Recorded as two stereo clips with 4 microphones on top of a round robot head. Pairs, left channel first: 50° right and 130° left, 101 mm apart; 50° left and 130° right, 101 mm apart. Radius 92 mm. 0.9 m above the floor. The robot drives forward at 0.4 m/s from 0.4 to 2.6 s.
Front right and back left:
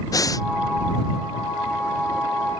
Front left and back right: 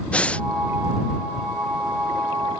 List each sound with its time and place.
0.1 s breathing: 20° right; by 0.5 s 25° right